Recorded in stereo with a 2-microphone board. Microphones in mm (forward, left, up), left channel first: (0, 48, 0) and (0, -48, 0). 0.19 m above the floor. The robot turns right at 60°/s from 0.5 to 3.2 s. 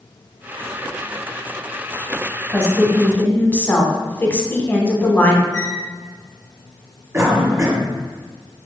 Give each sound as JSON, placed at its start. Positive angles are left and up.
{"t": 2.5, "sound": "a woman speaking", "side_deg": 5, "distance_m": 1.0}
{"t": 5.5, "sound": "a squeak", "side_deg": 50, "distance_m": 1.6}
{"t": 7.1, "sound": "a cough", "side_deg": -30, "distance_m": 1.3}